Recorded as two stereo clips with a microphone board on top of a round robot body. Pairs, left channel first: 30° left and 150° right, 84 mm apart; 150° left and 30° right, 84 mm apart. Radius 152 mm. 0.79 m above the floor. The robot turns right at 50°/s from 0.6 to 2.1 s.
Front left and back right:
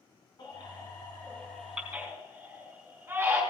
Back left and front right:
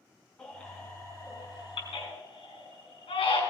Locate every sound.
0.4 s a baby crying: 70° left, 5 m; by 3.4 s 145° left, 5 m